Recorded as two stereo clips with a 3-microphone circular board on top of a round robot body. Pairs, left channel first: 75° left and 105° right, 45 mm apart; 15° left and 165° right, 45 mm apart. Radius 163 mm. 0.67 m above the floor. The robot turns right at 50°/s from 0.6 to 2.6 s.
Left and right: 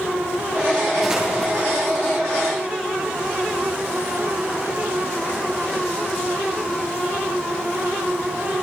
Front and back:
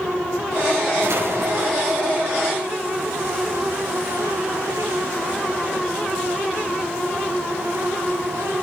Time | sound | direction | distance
1.0 | an explosion | 175° left | 8 m